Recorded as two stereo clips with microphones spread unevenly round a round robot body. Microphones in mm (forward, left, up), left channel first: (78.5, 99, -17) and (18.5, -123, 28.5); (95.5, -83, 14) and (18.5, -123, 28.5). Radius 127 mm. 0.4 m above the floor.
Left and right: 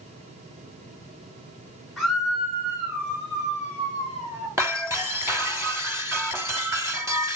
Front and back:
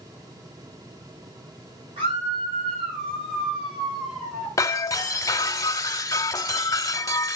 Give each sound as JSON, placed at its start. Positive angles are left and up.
{"t": 2.0, "sound": "a scream", "azimuth_deg": 160, "distance_m": 4.5}
{"t": 4.6, "sound": "breaking glass", "azimuth_deg": -25, "distance_m": 1.6}